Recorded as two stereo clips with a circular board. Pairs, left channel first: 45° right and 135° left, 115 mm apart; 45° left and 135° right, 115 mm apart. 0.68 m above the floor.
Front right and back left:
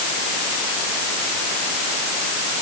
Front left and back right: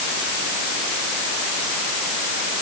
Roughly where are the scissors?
I don't hear scissors.